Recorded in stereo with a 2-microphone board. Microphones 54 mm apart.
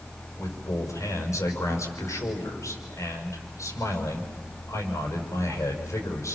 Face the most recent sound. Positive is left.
turn(degrees=70)  # may be behind; listen again after turning